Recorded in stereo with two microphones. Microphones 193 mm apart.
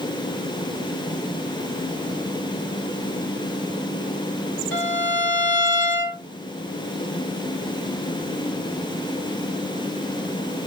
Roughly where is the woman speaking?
No woman speaking in this recording.